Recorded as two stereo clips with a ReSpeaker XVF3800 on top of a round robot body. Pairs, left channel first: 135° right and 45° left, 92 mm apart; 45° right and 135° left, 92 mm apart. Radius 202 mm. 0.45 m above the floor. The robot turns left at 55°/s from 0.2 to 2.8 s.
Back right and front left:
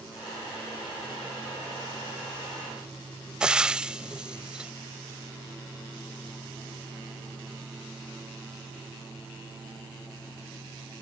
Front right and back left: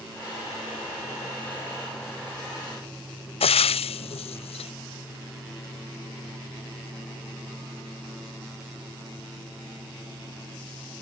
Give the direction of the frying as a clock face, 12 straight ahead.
1 o'clock.